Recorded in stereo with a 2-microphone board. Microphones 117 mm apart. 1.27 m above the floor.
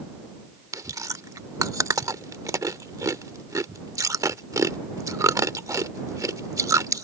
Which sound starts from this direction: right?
Chewing, at 0.7 s.